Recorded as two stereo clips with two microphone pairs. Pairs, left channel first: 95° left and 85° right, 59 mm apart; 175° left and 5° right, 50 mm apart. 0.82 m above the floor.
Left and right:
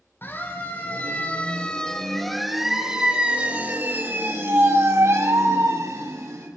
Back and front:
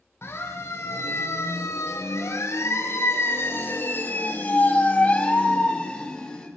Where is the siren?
145° left, 5 m; by 6.5 s 110° right, 6.5 m.